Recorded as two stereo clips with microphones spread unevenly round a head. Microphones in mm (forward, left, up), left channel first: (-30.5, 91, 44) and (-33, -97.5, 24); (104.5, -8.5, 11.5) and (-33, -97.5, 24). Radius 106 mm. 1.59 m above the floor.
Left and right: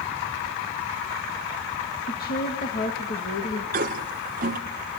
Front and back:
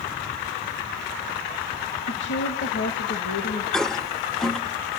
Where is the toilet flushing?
55° right, 1.4 m.